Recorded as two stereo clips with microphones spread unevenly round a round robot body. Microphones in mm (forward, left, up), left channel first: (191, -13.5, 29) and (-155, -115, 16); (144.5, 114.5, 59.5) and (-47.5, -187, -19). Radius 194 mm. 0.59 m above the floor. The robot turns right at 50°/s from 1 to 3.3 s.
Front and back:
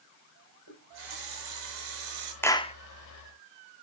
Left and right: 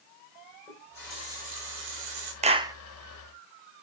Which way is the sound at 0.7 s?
145° left.